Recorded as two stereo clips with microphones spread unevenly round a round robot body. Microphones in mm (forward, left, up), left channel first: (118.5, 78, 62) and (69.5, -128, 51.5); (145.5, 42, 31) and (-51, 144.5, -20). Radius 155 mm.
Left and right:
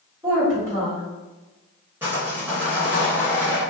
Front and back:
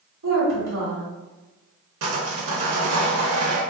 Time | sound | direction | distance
0.2 | a woman speaking | straight behind | 1.3 m
2.0 | sawing | 175° left | 0.5 m